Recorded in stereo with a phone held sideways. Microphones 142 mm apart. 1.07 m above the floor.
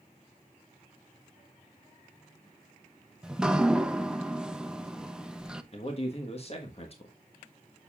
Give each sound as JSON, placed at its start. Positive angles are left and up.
{"t": 3.2, "sound": "dripping", "side_deg": -5, "distance_m": 0.5}
{"t": 5.7, "sound": "a man speaking", "side_deg": 45, "distance_m": 1.3}